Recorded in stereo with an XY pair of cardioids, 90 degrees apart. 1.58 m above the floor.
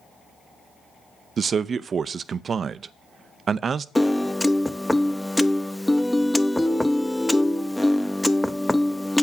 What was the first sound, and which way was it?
A man speaking, 50° right.